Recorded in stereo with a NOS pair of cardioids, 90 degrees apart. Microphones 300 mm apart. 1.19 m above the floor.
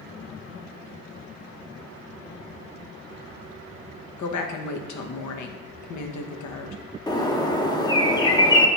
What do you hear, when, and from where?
4.2 s a woman speaking: 70° left, 1.0 m
7.1 s a bird: 15° left, 0.7 m